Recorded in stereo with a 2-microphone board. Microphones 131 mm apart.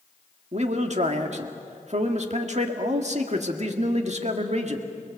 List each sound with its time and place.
0.5 s a man speaking: 55° right (ahead or behind), 1.9 m